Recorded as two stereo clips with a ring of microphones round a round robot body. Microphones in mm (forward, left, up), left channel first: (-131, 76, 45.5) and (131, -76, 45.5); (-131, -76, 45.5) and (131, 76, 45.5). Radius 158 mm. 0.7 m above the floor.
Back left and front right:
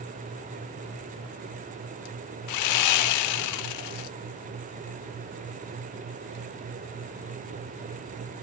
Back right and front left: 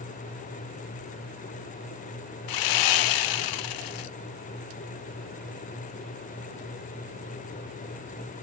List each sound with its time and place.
2.5 s sawing: 175° right, 0.5 m